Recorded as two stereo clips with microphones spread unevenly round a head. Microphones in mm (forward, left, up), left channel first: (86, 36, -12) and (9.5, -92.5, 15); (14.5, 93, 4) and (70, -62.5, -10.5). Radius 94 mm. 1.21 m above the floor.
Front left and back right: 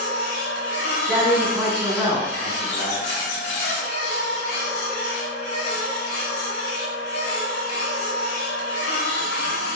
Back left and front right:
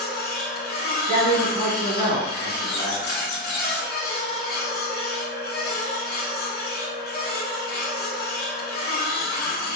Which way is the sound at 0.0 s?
95° left.